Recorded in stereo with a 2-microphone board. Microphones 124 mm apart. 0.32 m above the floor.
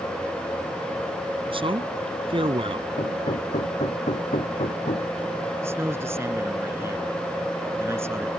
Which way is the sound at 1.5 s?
45° right (ahead or behind).